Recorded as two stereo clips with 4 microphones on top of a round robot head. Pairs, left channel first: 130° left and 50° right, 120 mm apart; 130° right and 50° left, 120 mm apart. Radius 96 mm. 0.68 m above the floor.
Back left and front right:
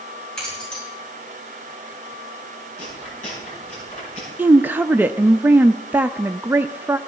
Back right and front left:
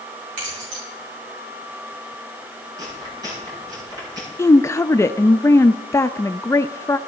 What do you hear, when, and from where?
0.4 s keys jangling: 50° left, 8 m
2.8 s chewing: 105° left, 8.5 m
4.4 s a woman speaking: 105° right, 0.5 m